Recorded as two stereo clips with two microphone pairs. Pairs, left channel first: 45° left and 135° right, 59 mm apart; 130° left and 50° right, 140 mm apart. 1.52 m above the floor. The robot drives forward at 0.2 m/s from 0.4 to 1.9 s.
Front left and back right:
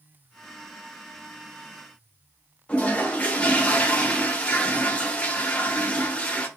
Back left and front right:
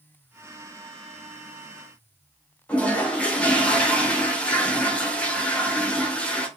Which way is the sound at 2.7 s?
70° left.